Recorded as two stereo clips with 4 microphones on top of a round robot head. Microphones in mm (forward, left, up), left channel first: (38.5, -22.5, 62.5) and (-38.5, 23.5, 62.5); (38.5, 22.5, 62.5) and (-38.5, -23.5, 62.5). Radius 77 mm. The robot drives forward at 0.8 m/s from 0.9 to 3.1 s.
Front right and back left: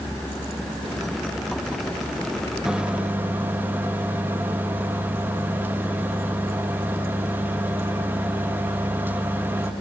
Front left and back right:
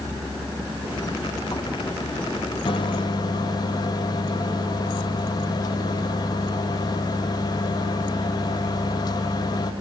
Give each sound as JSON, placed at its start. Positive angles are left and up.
{"t": 2.6, "sound": "a microwave", "azimuth_deg": 65, "distance_m": 1.7}